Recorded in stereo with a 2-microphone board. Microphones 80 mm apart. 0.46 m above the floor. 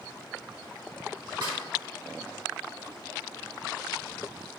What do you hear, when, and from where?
1.4 s a snare drum: 60° right (ahead or behind), 1.2 m